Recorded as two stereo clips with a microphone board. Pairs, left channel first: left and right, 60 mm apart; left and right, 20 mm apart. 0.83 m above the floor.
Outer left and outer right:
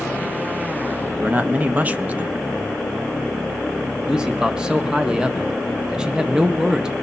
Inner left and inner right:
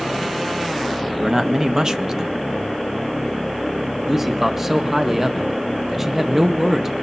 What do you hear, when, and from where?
1.2 s a man speaking: 25° right (ahead or behind), 0.9 m
4.1 s a man speaking: 15° right (ahead or behind), 1.1 m